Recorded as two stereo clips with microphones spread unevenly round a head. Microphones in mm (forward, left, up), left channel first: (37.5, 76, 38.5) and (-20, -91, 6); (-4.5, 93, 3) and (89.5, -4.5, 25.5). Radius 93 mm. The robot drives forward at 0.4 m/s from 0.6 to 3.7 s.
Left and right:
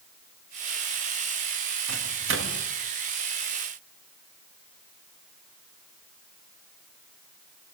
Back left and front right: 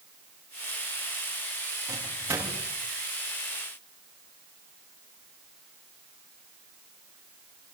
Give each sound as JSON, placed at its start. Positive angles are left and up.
{"t": 1.9, "sound": "a microwave", "azimuth_deg": -120, "distance_m": 2.5}